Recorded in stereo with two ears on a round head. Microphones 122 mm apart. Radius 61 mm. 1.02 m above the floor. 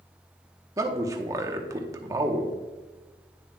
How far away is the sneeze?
No sneeze in this recording.